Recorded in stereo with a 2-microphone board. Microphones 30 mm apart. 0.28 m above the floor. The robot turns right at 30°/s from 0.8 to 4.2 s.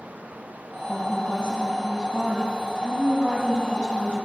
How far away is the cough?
I don't hear a cough.